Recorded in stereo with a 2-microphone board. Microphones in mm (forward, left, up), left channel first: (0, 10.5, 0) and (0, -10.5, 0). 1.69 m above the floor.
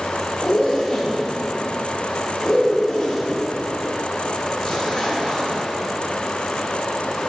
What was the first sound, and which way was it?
A zipper, 30° left (ahead or behind).